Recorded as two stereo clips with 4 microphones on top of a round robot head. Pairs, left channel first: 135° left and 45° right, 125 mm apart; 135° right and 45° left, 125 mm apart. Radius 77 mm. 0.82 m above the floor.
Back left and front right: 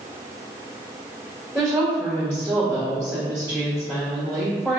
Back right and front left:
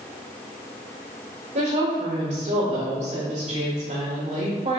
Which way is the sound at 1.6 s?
35° left.